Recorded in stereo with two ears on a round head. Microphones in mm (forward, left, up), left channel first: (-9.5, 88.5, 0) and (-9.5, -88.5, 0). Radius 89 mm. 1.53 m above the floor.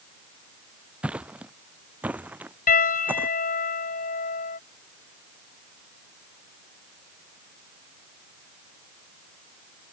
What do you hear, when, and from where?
1.0 s footsteps: 5° right (ahead or behind); by 3.3 s 10° right (ahead or behind)
2.7 s a piano: 45° left (ahead or behind)